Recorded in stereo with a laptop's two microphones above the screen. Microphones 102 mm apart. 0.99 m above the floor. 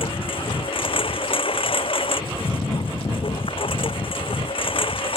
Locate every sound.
0.0 s a lawn mower: 60° left (ahead or behind)